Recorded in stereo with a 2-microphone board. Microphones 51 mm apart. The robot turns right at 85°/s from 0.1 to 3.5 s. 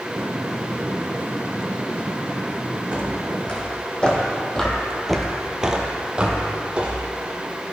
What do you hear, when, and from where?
2.9 s footsteps: 25° right (ahead or behind), 2 m